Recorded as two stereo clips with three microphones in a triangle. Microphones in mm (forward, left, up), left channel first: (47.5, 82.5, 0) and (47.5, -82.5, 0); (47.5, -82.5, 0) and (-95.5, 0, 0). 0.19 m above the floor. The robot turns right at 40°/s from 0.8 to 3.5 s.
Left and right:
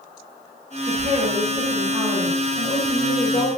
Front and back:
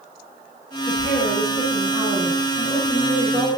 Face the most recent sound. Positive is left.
turn(degrees=50)